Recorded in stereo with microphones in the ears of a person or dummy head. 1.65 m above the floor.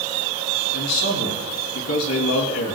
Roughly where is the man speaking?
Left.